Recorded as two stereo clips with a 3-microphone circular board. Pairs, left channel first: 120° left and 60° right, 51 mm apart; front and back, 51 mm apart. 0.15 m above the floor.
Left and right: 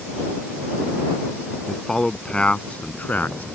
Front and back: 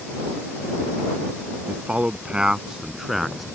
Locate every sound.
1.7 s a man speaking: 165° right; by 3.5 s 90° left